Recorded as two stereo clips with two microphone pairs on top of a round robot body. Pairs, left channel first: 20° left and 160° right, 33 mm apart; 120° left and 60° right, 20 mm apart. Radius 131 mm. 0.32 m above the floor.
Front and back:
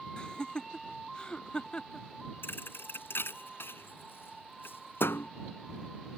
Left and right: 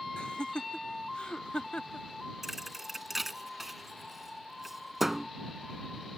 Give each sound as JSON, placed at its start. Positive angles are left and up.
{"t": 0.2, "sound": "laughter", "azimuth_deg": 85}
{"t": 2.4, "sound": "a thud", "azimuth_deg": 25}